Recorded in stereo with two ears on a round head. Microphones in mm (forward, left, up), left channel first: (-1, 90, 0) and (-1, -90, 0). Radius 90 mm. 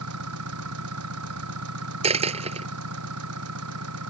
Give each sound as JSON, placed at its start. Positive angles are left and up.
{"t": 0.0, "sound": "an engine running", "side_deg": -90}
{"t": 2.0, "sound": "a dropped coin", "side_deg": -30}